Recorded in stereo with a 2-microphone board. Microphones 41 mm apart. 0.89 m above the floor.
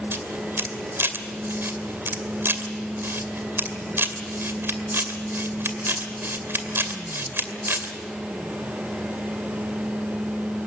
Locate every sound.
0.1 s a camera shutter: 65° right (ahead or behind), 2.5 m